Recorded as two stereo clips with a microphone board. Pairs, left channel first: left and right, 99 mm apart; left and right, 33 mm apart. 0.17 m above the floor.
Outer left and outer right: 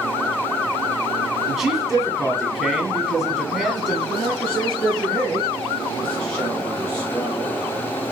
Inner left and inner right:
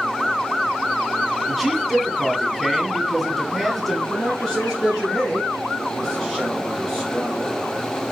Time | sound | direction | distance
1.5 | a man speaking | 5° right (ahead or behind) | 1.4 m
4.1 | a man speaking | 10° left (ahead or behind) | 2 m